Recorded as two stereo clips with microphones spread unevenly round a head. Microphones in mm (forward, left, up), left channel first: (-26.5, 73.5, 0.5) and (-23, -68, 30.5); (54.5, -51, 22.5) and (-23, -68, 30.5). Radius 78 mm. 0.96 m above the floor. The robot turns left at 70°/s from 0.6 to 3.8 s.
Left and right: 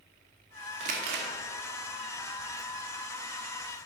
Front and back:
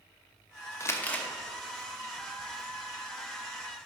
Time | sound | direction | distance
0.8 | crumpling | 40° right | 1.1 m